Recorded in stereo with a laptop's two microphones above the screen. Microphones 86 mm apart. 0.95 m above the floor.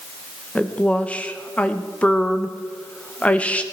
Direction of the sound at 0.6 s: 15° left (ahead or behind).